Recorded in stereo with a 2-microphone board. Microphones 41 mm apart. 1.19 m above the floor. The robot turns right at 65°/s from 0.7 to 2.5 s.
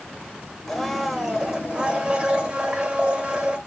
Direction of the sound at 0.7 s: 5° left (ahead or behind).